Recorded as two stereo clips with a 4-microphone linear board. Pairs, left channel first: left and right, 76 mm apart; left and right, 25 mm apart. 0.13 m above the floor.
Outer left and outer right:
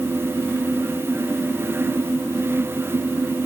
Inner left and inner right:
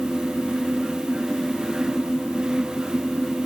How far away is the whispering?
I don't hear whispering.